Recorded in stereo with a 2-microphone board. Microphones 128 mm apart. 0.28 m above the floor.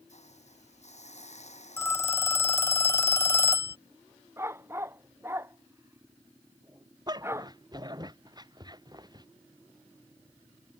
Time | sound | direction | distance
0.1 | a hiss | 60° left (ahead or behind) | ?
1.8 | a phone ringing | 20° left (ahead or behind) | ?
4.4 | a dog barking | 20° right (ahead or behind) | ?
7.1 | a dog barking | 30° right (ahead or behind) | ?